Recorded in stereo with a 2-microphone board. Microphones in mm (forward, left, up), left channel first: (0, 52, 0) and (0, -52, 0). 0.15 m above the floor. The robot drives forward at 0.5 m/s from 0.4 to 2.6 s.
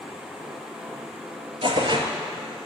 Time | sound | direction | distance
1.6 | tearing paper | 55° right (ahead or behind) | 0.7 m